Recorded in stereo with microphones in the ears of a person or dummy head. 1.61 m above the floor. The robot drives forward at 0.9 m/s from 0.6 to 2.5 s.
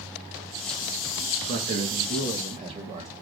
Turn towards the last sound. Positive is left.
turn(degrees=-30)  # may be behind; listen again after turning